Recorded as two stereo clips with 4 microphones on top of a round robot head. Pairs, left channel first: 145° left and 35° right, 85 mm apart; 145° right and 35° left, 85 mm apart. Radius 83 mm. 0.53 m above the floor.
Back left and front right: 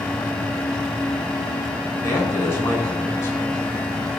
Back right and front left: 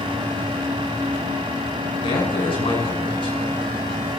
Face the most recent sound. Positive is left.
turn(degrees=-155)